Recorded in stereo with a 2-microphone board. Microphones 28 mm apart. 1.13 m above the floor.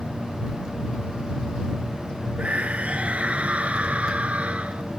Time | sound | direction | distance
2.4 | a scream | 55° right (ahead or behind) | ?